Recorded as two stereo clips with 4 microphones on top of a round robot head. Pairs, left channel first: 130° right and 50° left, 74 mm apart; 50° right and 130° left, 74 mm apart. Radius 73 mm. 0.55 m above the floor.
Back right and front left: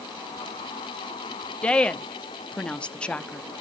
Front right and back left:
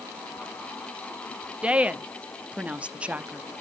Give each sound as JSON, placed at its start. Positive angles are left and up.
{"t": 1.6, "sound": "a woman speaking", "azimuth_deg": 175, "distance_m": 0.7}